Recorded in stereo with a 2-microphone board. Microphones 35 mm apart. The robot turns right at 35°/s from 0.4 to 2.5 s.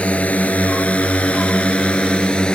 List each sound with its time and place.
0.0 s a drone: 40° left (ahead or behind); by 2.5 s 30° left (ahead or behind)